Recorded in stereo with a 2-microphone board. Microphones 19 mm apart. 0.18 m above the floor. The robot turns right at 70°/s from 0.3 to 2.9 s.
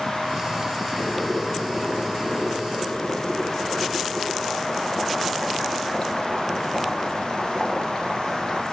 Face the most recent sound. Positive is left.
turn(degrees=45)